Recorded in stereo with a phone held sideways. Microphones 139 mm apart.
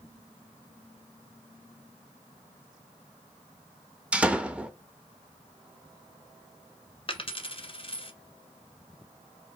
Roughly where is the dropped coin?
Left.